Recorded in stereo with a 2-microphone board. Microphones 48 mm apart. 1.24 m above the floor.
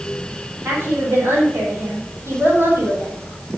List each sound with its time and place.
0.7 s a woman speaking: 60° right (ahead or behind), 6 m